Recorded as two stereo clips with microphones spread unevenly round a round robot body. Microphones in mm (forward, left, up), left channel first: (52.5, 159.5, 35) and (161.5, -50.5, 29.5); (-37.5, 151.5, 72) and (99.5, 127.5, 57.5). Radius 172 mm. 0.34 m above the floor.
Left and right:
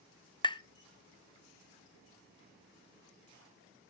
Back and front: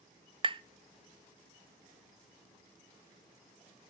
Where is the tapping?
45° left, 0.6 m.